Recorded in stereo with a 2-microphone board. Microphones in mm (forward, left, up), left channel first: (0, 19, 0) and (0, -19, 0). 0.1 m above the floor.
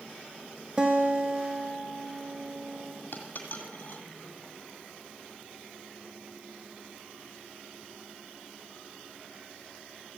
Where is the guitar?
25° right (ahead or behind), 1.3 m.